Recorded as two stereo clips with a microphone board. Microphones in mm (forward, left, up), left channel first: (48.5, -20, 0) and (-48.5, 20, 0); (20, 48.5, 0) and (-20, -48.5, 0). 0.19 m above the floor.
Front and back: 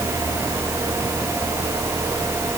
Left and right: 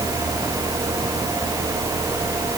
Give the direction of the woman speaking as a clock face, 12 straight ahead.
No woman speaking in this recording.